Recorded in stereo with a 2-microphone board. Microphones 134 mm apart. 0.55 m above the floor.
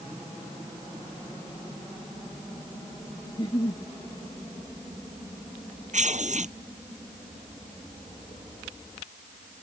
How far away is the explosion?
I don't hear an explosion.